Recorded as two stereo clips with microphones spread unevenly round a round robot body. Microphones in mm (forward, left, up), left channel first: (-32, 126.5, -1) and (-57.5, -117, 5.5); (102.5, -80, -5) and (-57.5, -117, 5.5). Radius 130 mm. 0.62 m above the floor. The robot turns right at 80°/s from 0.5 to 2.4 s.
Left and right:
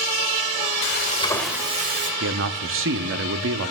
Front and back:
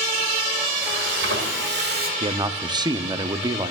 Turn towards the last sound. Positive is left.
turn(degrees=-105)